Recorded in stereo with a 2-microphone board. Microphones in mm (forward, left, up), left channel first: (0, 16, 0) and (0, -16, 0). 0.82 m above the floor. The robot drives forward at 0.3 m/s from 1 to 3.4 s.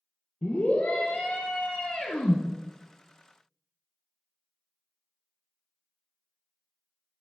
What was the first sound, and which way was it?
A scream, 45° left (ahead or behind).